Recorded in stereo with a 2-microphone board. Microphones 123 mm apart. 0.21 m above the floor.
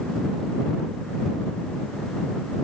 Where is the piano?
No piano in this recording.